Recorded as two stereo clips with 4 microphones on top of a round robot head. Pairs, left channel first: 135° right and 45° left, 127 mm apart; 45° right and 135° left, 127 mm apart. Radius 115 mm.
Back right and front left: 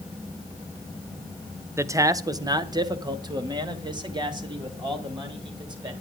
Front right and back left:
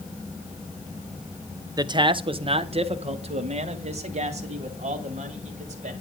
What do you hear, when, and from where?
1.8 s a man speaking: 100° left, 0.9 m